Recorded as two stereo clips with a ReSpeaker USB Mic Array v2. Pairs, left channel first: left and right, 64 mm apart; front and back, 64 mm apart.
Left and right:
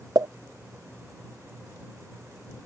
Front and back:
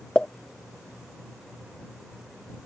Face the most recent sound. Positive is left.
turn(degrees=-75)